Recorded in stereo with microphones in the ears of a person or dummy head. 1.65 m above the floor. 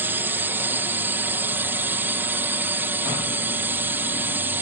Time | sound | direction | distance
0.0 | a drone | 15° right (ahead or behind) | ?